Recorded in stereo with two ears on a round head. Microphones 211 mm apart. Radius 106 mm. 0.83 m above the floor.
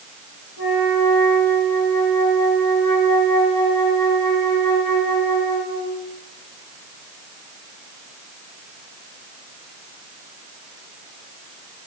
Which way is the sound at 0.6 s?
60° left (ahead or behind).